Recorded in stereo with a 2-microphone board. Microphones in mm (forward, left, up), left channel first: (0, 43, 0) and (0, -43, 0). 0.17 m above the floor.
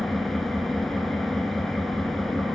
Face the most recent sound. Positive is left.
turn(degrees=0)  # may be behind; listen again after turning